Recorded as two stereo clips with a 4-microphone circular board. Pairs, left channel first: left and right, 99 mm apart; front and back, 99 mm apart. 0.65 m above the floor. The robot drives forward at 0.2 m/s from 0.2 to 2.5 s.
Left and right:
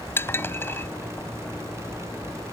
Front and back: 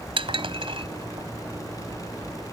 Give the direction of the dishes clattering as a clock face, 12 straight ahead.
7 o'clock.